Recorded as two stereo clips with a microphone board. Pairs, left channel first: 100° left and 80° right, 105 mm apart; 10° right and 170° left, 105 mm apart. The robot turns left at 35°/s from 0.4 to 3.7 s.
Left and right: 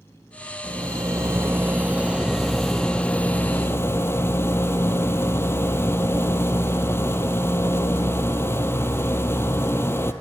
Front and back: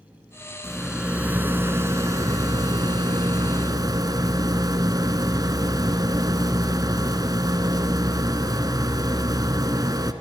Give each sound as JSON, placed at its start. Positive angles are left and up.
{"t": 0.6, "sound": "a rattle", "azimuth_deg": -100, "distance_m": 1.4}